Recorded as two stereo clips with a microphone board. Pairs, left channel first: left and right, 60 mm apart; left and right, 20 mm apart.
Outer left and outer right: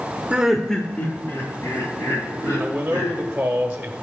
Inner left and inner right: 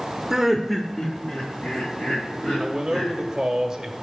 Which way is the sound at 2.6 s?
15° right (ahead or behind).